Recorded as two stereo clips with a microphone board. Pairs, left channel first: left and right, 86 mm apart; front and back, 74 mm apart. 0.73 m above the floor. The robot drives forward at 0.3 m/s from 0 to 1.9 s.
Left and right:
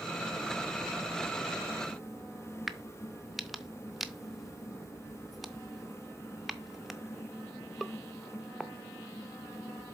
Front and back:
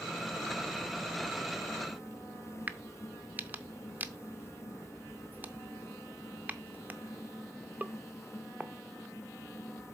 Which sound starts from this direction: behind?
A crack, at 2.7 s.